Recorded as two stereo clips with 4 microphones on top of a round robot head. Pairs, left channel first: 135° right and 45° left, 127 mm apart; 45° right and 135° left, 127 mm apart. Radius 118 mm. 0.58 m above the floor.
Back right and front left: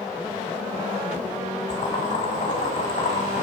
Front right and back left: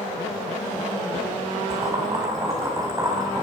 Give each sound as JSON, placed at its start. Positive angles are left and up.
{"t": 1.7, "sound": "boiling", "azimuth_deg": -160, "distance_m": 5.0}